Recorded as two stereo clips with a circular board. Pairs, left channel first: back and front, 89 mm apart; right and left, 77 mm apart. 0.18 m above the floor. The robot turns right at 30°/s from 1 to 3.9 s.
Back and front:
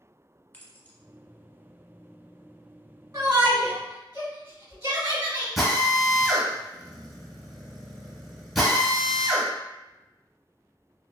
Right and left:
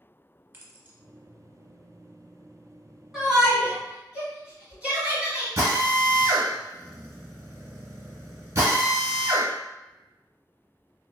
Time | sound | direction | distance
0.5 | keys jangling | 130° left | 0.8 m
3.1 | a shout | 5° left | 1.4 m
5.6 | a drill | 90° left | 1.3 m